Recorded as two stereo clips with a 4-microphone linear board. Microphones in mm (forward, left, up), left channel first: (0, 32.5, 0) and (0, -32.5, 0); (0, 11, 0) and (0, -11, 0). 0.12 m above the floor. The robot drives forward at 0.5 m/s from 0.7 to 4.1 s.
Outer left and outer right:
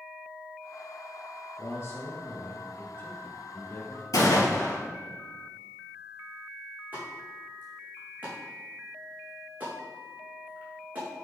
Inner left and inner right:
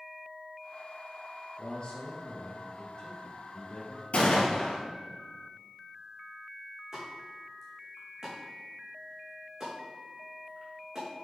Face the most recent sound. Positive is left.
turn(degrees=-25)  # may be behind; listen again after turning